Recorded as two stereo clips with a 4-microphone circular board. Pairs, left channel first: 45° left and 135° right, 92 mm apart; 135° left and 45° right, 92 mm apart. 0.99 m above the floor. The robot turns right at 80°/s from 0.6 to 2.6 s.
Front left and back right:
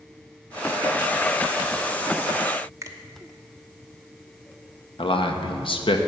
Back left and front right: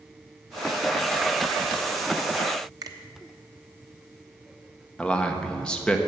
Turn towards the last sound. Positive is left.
turn(degrees=55)